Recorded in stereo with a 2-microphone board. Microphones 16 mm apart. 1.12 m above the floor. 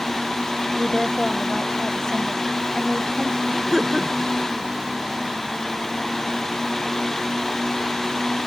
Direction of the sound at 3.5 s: 15° right (ahead or behind).